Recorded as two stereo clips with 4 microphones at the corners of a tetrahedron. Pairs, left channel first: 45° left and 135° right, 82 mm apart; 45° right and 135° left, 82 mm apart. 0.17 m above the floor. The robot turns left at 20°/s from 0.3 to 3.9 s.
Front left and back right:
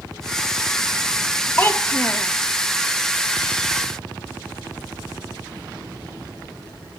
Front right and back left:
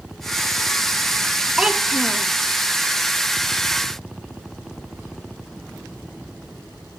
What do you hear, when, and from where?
1.6 s a child speaking: 70° left, 0.8 m; by 2.3 s 55° left, 0.8 m